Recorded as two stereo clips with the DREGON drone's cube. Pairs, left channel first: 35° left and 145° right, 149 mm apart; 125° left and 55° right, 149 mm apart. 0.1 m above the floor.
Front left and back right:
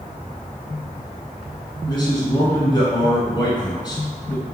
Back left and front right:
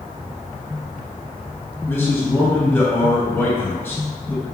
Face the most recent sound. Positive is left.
turn(degrees=65)